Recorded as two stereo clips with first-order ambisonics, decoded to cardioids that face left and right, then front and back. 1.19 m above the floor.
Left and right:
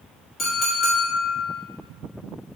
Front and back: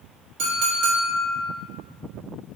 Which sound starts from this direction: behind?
A clink, at 0.4 s.